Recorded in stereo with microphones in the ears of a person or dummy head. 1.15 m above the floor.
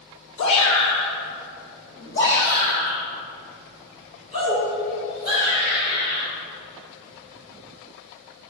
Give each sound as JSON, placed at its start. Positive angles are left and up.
{"t": 0.4, "sound": "a shout", "side_deg": 85, "distance_m": 2.0}